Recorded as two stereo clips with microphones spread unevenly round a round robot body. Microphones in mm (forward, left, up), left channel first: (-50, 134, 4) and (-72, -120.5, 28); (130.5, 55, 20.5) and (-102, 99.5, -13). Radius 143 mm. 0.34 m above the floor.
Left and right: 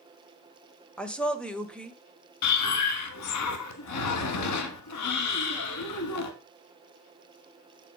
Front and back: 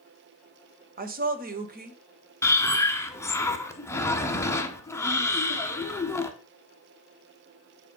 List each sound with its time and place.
1.0 s a woman speaking: 165° left, 1.3 m
2.4 s breathing: 70° left, 1.3 m